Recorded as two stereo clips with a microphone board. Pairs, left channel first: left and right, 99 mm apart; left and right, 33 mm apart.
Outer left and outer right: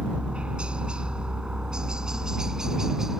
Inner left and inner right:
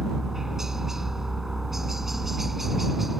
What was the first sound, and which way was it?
A helicopter, 10° right (ahead or behind).